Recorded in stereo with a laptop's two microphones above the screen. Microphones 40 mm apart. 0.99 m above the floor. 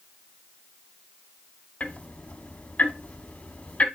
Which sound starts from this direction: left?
Ticking, at 1.8 s.